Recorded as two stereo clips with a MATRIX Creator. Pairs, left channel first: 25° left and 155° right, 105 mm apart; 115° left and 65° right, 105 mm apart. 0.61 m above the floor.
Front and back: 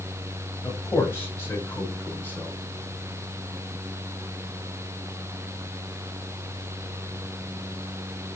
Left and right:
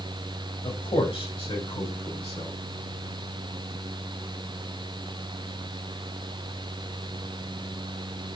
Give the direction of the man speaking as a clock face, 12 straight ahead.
9 o'clock.